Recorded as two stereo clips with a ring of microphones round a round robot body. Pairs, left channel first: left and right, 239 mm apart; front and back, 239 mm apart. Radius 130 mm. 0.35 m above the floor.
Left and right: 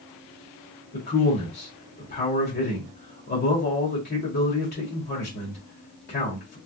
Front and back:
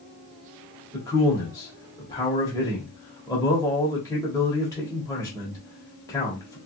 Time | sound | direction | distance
0.9 | a man speaking | 70° left | 1.4 m